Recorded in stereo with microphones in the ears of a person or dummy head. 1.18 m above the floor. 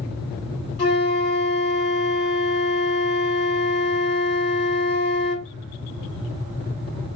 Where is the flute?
40° left (ahead or behind), 2 m.